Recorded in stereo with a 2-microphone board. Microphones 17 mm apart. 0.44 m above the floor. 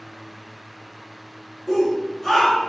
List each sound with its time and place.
1.7 s a shout: 20° right (ahead or behind), 1.5 m; by 2.7 s 15° left (ahead or behind), 1.7 m